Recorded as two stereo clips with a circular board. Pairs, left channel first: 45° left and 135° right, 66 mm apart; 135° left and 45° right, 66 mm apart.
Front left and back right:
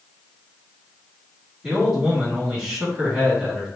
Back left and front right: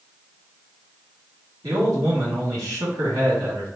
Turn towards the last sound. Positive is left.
turn(degrees=-55)